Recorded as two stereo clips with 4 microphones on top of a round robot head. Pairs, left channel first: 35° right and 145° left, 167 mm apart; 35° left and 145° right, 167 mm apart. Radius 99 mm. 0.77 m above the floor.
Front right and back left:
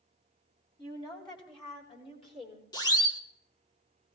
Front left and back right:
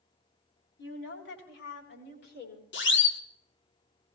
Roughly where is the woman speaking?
Ahead left.